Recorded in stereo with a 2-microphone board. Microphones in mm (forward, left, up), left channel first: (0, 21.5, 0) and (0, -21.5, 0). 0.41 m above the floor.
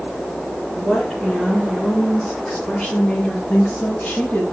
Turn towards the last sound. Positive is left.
turn(degrees=40)  # may be behind; listen again after turning